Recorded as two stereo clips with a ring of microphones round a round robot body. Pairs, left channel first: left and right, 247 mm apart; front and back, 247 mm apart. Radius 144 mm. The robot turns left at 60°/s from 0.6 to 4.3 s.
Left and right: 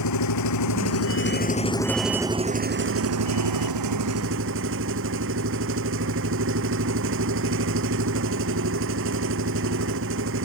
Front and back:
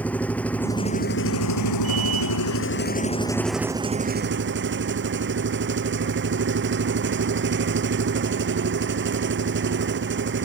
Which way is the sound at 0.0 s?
85° left.